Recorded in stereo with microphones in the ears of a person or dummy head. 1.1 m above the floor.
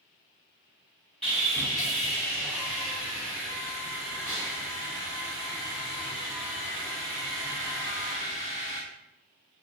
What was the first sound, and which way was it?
Sawing, centre (ahead or behind).